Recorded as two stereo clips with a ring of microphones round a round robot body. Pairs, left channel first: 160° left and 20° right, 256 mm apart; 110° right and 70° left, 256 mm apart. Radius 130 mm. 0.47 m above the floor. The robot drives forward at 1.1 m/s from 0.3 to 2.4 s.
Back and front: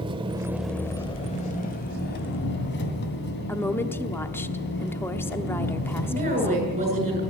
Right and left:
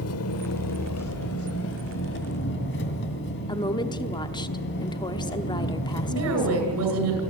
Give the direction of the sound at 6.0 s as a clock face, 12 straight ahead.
11 o'clock.